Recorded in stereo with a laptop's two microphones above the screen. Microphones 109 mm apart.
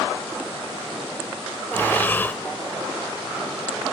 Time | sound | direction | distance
1.7 | breathing | 20° left (ahead or behind) | 1.4 m